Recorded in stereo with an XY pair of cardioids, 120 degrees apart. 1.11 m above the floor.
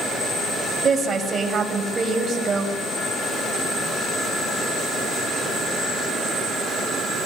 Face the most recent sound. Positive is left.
turn(degrees=-35)